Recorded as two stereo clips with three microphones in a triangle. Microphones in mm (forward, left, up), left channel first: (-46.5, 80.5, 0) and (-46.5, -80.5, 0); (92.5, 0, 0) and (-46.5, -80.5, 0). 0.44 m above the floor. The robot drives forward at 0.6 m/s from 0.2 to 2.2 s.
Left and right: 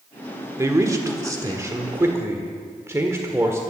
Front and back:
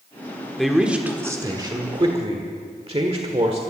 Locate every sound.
0.6 s a man speaking: 55° right, 1.2 m; by 3.6 s 150° right, 1.4 m